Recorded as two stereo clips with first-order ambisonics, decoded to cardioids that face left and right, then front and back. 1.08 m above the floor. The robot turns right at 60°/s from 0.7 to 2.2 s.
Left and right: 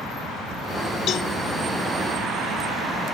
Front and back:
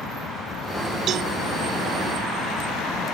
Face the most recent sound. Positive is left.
turn(degrees=-160)